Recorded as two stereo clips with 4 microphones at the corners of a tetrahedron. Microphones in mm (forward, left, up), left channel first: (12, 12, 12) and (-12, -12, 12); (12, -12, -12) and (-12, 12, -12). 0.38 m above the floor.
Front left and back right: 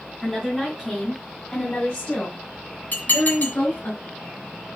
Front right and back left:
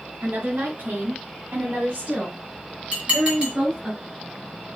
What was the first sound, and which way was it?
A woman speaking, 130° left.